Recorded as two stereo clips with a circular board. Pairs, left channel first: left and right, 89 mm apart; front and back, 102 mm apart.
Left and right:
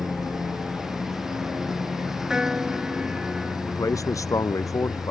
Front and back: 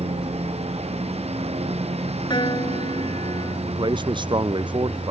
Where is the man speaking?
140° left.